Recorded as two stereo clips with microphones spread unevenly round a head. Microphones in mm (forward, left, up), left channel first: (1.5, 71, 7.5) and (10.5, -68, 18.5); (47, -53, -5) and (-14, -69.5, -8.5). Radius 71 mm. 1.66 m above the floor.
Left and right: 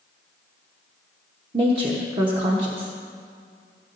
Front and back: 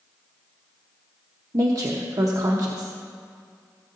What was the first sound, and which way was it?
A woman speaking, 135° right.